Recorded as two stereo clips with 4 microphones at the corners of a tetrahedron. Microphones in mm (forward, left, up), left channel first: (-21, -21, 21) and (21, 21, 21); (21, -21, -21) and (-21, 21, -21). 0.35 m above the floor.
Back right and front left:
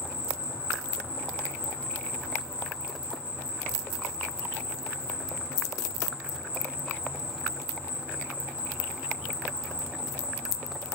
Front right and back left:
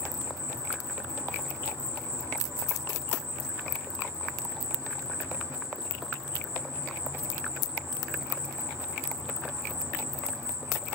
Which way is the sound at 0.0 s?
110° left.